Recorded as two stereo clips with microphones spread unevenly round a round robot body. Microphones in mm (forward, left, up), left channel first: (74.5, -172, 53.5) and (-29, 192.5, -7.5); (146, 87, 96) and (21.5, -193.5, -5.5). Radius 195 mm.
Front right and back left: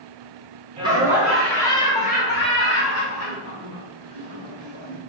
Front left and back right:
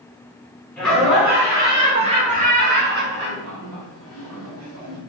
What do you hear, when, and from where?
0.8 s laughter: 170° left, 1.4 m; by 5.0 s 95° right, 2 m